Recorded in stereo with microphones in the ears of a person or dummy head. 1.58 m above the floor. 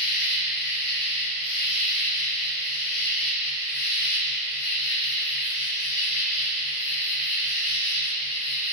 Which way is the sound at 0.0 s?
55° left (ahead or behind).